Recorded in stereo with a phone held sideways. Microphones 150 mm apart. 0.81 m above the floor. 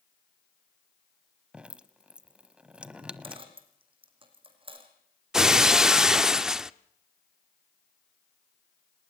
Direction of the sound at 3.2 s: 35° right (ahead or behind).